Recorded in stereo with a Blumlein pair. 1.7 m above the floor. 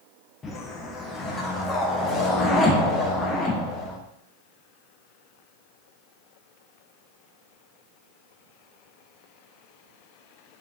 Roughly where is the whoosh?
Ahead.